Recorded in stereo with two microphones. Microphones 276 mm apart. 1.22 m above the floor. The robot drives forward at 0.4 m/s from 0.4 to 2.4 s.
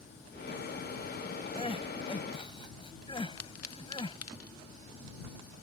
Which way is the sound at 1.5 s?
20° left (ahead or behind).